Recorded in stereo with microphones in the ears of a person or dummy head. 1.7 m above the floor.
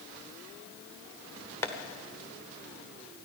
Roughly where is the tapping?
Centre.